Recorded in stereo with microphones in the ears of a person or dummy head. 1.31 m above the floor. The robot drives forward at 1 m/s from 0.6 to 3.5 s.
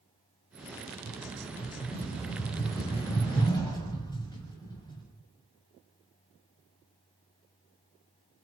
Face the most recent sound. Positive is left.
turn(degrees=20)  # may be behind; listen again after turning